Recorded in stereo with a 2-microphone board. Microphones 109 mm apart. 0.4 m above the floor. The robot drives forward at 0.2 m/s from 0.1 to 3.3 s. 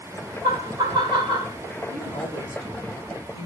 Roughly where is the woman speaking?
Left.